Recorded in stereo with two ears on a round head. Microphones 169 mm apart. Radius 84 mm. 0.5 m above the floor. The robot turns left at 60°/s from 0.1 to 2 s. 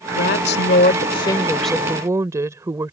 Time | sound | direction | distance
0.1 | a woman speaking | 95° left | ?